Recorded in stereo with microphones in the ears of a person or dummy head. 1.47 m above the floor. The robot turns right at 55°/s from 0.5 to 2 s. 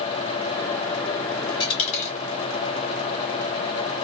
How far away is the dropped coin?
About 1.1 m.